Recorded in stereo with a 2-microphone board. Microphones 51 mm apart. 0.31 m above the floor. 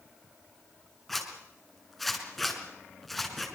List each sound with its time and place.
1.1 s a zipper: 5° left (ahead or behind), 4.5 m